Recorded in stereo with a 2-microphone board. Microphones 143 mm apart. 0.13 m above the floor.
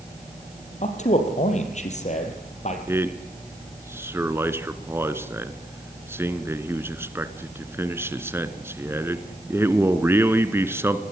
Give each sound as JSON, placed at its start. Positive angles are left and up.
{"t": 0.8, "sound": "a man speaking", "side_deg": 55, "distance_m": 4.0}
{"t": 2.9, "sound": "a man speaking", "side_deg": -15, "distance_m": 1.4}